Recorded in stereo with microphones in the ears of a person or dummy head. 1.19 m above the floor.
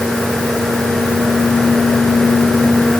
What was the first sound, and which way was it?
Only background noise.